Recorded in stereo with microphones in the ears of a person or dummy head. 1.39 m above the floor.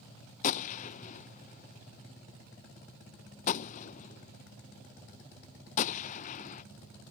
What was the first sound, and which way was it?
A gunshot, 40° left (ahead or behind).